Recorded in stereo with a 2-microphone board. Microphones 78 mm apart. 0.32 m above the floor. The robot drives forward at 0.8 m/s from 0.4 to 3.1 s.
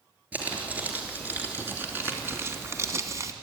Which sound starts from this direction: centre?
Crumpling, at 0.3 s.